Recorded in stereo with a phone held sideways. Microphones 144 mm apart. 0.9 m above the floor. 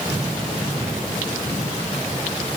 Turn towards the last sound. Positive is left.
No sound to turn to.